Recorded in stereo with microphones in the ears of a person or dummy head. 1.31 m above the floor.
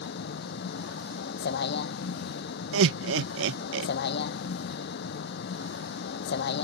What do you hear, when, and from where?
0.0 s a vehicle: 60° left (ahead or behind)
2.7 s laughter: 75° right (ahead or behind)